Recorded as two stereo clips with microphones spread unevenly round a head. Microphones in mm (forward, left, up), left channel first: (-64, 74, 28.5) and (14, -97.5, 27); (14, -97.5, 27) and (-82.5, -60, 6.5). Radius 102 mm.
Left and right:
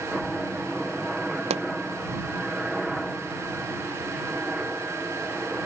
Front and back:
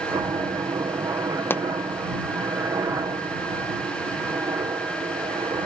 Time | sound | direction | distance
0.0 | a helicopter | 155° right | ?
1.5 | a pop | 40° right | ?